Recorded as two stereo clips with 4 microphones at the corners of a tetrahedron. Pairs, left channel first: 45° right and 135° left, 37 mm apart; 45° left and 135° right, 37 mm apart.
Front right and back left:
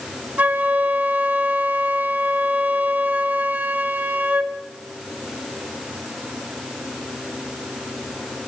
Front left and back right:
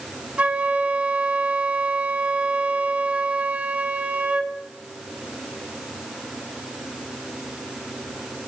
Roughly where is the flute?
Behind.